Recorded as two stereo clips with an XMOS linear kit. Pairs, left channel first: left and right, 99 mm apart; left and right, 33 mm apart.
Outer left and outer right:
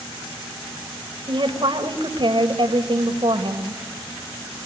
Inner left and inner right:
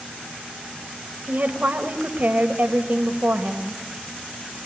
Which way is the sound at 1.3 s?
55° right (ahead or behind).